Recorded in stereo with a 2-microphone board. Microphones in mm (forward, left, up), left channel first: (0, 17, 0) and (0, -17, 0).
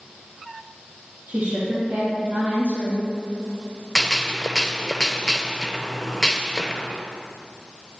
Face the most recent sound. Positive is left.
turn(degrees=15)  # may be behind; listen again after turning